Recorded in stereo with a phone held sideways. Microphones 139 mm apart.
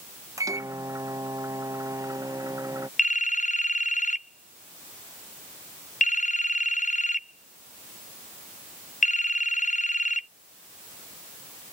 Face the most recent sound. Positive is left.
turn(degrees=65)  # may be behind; listen again after turning